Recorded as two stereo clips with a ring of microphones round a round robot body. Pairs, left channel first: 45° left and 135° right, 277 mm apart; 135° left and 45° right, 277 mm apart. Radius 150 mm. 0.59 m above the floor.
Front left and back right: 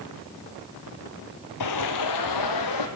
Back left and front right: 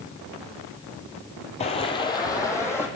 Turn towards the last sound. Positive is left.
turn(degrees=55)